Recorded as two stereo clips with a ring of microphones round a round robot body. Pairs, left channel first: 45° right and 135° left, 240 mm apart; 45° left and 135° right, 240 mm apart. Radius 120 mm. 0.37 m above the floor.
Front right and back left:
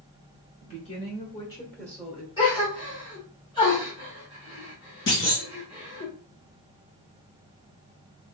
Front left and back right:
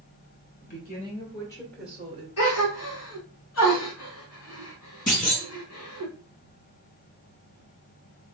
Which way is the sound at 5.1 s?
10° right.